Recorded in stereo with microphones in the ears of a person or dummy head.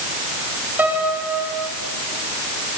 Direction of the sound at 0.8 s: 5° right (ahead or behind).